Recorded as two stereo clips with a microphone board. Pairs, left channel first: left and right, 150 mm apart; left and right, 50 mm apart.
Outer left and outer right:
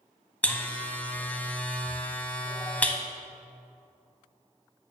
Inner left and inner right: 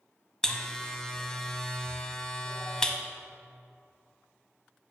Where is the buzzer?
10° left (ahead or behind), 0.7 m.